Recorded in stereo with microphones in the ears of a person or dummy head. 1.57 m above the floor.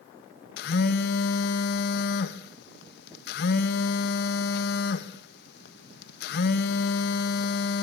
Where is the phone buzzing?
60° left (ahead or behind), 1.4 m.